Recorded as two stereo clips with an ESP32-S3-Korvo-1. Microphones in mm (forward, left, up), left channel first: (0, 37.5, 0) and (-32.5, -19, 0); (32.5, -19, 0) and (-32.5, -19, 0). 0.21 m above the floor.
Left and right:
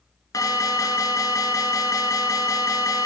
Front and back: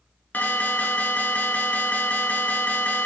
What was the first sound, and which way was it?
An alarm, 60° left.